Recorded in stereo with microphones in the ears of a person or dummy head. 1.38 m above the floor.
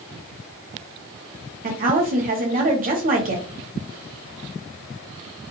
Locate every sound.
1.6 s a woman speaking: 35° right (ahead or behind), 0.8 m